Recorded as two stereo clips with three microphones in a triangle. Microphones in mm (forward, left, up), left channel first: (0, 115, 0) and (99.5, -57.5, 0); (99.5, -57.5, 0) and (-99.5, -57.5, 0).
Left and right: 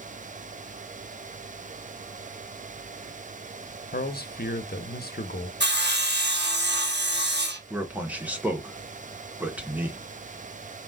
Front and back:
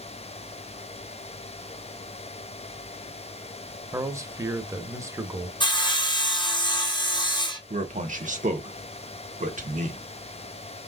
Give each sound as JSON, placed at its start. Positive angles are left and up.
{"t": 3.9, "sound": "a man speaking", "azimuth_deg": 110, "distance_m": 0.8}
{"t": 5.6, "sound": "sawing", "azimuth_deg": -65, "distance_m": 0.9}
{"t": 7.7, "sound": "a man speaking", "azimuth_deg": -140, "distance_m": 1.2}